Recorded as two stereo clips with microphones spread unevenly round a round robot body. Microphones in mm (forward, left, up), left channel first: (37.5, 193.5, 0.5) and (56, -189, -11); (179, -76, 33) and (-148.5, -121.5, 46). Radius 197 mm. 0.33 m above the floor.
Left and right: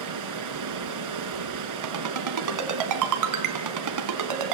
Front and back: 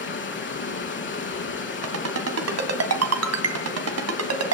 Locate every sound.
0.0 s running water: 45° right, 3 m
1.8 s a ringtone: 130° right, 2 m